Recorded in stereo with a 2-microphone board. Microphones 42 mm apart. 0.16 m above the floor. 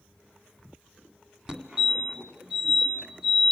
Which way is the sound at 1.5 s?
20° right (ahead or behind).